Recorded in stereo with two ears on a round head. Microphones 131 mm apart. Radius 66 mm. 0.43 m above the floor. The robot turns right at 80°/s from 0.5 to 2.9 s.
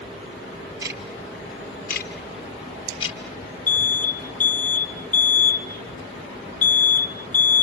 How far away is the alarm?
About 0.9 m.